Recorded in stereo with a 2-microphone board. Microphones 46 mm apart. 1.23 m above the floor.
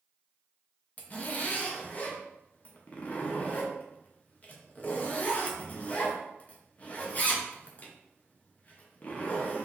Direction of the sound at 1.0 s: 35° left (ahead or behind).